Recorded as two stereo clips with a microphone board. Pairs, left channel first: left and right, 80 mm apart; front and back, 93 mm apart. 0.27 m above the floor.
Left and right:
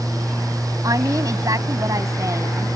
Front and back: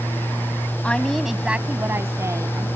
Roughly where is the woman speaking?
Right.